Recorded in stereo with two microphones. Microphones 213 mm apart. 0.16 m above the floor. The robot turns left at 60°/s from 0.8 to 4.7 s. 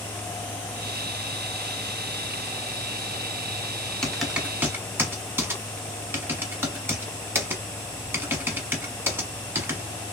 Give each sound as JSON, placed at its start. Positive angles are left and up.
{"t": 4.0, "sound": "typing on a keyboard", "side_deg": 5, "distance_m": 0.7}